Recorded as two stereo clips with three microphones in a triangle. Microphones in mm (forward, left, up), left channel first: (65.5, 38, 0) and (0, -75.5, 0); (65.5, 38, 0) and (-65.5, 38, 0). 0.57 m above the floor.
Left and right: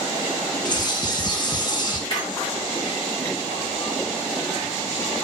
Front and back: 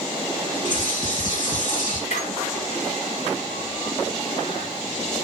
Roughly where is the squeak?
Ahead.